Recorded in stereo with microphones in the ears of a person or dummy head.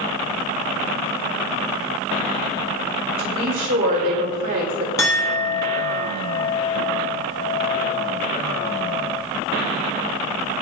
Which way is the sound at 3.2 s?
40° right (ahead or behind).